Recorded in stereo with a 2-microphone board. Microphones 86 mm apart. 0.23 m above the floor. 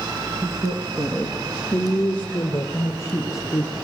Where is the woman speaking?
40° right (ahead or behind), 3 m; by 3.8 s 40° left (ahead or behind), 5 m.